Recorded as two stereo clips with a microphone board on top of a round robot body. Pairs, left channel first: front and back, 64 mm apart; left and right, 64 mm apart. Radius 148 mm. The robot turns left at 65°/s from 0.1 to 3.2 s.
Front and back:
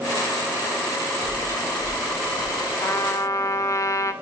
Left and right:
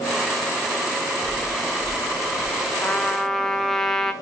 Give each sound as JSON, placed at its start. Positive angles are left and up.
{"t": 1.2, "sound": "chewing", "azimuth_deg": 160, "distance_m": 4.5}
{"t": 2.8, "sound": "a trumpet", "azimuth_deg": 35, "distance_m": 1.6}